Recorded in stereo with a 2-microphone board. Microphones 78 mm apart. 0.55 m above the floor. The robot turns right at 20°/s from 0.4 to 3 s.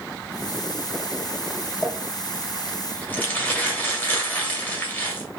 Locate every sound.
1.8 s crumpling: centre (ahead or behind), 1.0 m; by 5.3 s 20° left (ahead or behind), 1.0 m